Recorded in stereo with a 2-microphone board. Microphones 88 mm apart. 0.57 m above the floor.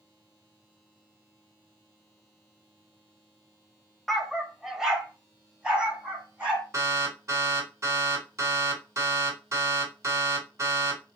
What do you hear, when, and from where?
4.1 s a dog barking: 5° left (ahead or behind), 0.5 m; by 6.6 s 15° right (ahead or behind), 2 m
6.7 s an alarm: 35° right (ahead or behind), 2.5 m